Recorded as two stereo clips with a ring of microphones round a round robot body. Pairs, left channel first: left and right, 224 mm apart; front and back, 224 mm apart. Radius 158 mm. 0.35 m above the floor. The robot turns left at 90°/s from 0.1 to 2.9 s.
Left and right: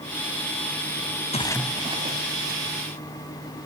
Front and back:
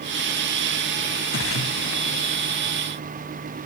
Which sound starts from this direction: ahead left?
A splash, at 1.3 s.